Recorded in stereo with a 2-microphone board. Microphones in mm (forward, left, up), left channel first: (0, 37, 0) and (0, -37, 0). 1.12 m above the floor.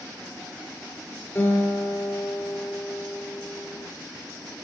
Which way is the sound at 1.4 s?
25° left (ahead or behind).